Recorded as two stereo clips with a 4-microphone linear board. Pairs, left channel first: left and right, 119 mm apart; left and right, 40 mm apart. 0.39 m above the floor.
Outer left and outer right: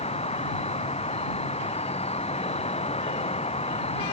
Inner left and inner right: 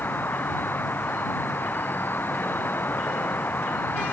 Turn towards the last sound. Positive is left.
turn(degrees=60)  # may be behind; listen again after turning